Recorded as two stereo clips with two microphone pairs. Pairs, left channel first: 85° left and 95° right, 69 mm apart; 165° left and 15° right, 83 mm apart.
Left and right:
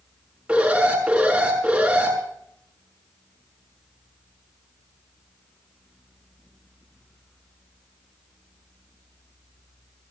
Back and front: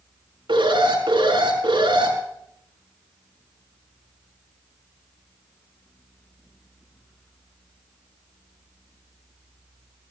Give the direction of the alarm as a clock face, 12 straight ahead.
1 o'clock.